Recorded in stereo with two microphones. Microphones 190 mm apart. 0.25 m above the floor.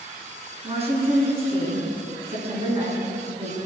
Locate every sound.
0.6 s a woman speaking: 30° right (ahead or behind), 3 m